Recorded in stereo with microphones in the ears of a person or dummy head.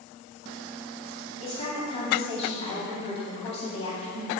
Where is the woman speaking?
35° left (ahead or behind), 2.5 m.